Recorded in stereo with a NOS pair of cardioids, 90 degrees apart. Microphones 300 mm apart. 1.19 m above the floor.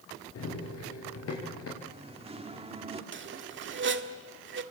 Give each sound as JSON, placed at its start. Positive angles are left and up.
{"t": 0.3, "sound": "running footsteps", "azimuth_deg": 55, "distance_m": 8.0}
{"t": 1.8, "sound": "singing", "azimuth_deg": -20, "distance_m": 2.5}
{"t": 3.1, "sound": "a squeak", "azimuth_deg": -40, "distance_m": 1.6}